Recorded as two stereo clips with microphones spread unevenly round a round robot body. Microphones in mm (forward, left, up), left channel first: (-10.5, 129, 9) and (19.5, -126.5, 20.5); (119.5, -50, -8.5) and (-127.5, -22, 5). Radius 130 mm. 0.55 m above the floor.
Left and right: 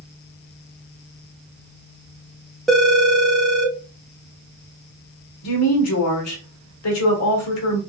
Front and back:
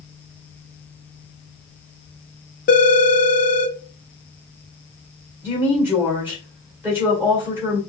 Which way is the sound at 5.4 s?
90° left.